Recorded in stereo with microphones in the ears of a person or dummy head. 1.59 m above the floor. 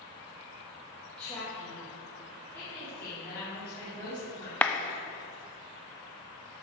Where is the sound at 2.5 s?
5° left (ahead or behind), 3.5 m.